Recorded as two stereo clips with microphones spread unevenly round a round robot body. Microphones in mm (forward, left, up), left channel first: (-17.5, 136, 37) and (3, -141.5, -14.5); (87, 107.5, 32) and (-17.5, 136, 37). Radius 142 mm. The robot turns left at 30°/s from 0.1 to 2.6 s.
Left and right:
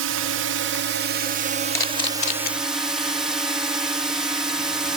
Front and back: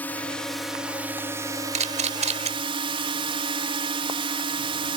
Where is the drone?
90° right; by 5.0 s 165° right.